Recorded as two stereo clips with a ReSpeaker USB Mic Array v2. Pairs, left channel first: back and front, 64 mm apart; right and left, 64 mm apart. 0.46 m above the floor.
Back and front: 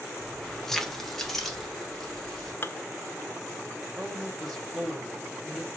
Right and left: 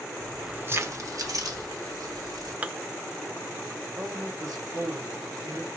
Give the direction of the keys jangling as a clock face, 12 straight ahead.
4 o'clock.